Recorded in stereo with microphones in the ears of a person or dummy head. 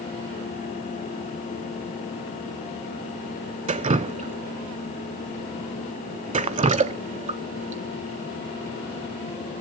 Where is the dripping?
30° right (ahead or behind), 0.6 m.